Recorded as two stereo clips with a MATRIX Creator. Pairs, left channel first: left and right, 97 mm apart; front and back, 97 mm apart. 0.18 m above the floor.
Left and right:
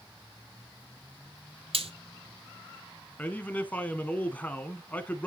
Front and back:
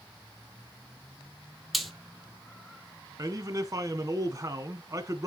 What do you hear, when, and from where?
1.7 s frying: 90° right, 1.3 m
3.2 s a man speaking: 155° left, 1.3 m